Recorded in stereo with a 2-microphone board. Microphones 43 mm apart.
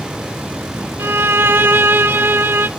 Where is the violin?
60° right (ahead or behind), 0.6 m.